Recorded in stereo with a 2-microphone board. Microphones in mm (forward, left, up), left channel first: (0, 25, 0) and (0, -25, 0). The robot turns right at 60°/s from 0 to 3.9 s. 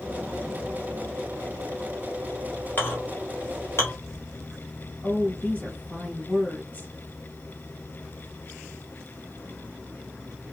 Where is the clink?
35° left (ahead or behind), 1.6 m; by 3.9 s 50° left (ahead or behind), 1.6 m.